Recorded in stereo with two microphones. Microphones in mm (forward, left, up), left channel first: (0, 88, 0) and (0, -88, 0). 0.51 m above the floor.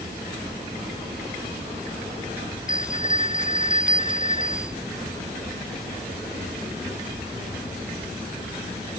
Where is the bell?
30° right (ahead or behind).